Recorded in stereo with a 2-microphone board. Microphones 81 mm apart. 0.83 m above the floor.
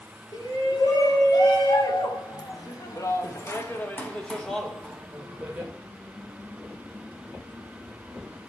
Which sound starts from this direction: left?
A shout, at 0.3 s.